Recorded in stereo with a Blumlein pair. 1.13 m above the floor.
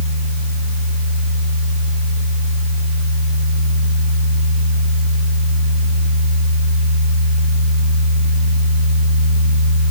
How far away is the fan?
About 2.0 m.